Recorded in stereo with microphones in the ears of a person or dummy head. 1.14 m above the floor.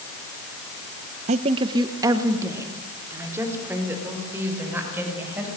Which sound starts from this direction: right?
A woman speaking, at 1.3 s.